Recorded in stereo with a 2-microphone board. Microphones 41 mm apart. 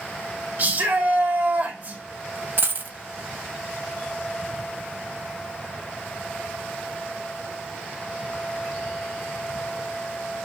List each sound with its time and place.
0.6 s a shout: 50° right (ahead or behind), 1.9 m
2.6 s a dropped coin: 55° right (ahead or behind), 0.5 m